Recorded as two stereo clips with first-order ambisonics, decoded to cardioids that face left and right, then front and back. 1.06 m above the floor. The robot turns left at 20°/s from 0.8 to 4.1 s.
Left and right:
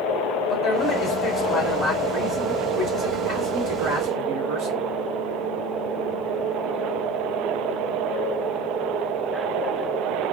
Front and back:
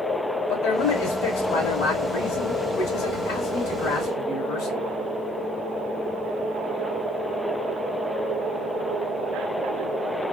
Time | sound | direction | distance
0.5 | a man speaking | 15° left | 2.5 m